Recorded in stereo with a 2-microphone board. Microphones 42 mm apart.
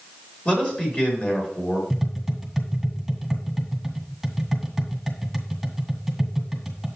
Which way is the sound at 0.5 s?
30° left (ahead or behind).